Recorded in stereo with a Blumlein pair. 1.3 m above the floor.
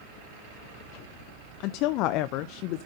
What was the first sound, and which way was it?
A woman speaking, 40° left.